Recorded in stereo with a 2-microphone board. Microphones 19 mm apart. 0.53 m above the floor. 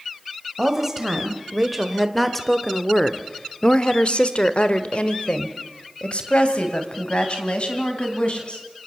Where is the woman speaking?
15° right (ahead or behind), 2.5 m; by 8.6 s 55° left (ahead or behind), 4 m.